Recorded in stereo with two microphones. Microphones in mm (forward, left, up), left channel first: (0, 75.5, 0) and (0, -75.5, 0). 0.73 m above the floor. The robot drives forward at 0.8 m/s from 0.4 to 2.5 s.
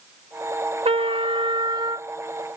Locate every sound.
0.8 s a trumpet: 40° right (ahead or behind); by 2.1 s 30° right (ahead or behind)